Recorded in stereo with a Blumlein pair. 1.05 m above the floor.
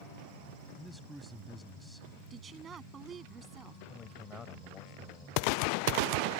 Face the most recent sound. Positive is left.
turn(degrees=15)